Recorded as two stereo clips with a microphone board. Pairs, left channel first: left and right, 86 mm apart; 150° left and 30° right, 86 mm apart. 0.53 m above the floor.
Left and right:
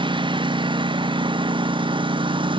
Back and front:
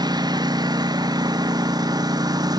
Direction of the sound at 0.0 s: 70° right.